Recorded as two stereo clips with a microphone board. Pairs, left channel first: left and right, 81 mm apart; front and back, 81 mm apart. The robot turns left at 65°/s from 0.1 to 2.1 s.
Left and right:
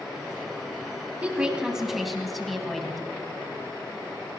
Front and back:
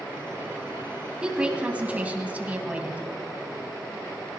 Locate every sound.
1.2 s a woman speaking: 120° right, 1.5 m; by 3.0 s straight behind, 1.5 m